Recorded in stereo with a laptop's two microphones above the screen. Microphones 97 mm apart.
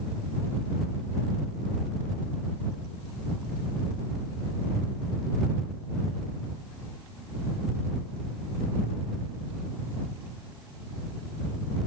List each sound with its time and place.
Only background noise.